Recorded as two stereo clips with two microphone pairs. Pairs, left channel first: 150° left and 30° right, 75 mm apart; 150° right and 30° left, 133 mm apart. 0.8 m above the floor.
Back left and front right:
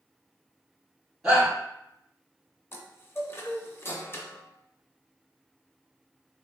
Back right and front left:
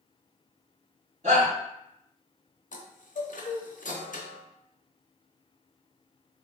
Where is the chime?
155° right, 0.5 m.